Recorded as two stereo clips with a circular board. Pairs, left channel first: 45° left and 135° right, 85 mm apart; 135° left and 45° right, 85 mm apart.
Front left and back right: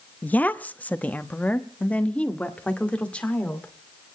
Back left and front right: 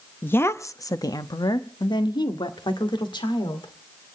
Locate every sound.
0.2 s a woman speaking: 95° left, 0.7 m; by 3.7 s 120° left, 2.5 m